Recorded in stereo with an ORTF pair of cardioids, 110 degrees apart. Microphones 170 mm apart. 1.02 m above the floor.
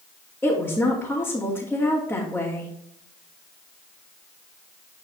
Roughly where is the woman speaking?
Ahead.